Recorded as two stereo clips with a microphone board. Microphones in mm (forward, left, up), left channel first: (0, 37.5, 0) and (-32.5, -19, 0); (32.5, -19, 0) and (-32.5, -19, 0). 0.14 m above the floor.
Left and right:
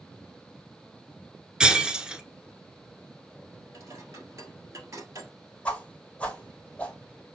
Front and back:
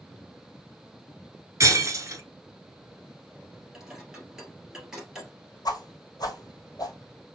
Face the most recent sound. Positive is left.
turn(degrees=-10)